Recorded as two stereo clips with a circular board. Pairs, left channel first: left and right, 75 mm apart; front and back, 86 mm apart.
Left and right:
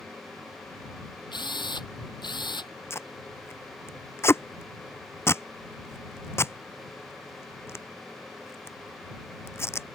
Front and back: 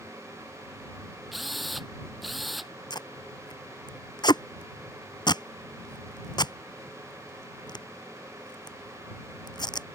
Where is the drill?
90° left.